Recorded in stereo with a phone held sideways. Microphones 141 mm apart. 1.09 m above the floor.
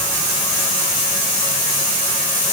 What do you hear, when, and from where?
Only background noise.